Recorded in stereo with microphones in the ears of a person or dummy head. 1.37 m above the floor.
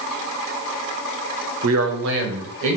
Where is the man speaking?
70° right (ahead or behind), 0.6 m; by 2.8 s 75° right (ahead or behind), 1.1 m.